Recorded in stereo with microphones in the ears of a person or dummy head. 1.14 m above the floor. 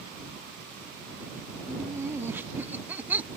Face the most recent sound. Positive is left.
turn(degrees=-10)  # may be behind; listen again after turning